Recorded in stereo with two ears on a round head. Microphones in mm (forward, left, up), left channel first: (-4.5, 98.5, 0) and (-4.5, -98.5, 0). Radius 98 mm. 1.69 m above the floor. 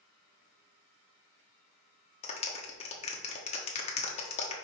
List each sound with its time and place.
2.2 s a clap: 30° left (ahead or behind), 1.3 m